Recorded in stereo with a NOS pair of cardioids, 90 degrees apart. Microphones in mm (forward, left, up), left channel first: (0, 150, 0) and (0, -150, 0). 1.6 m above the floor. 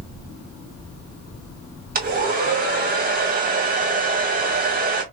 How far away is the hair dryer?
About 1.8 m.